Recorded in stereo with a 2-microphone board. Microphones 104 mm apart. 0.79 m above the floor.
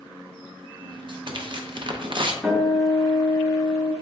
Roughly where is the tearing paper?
Right.